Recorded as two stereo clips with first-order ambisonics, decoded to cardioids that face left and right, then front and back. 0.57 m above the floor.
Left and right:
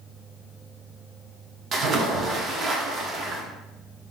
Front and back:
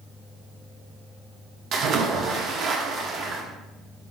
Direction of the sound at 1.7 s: 145° right.